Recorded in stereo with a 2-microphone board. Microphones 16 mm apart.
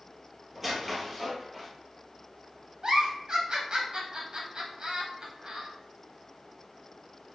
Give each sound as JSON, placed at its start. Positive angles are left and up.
{"t": 0.6, "sound": "a squeak", "side_deg": 0, "distance_m": 1.1}
{"t": 2.8, "sound": "a giggle", "side_deg": -50, "distance_m": 1.1}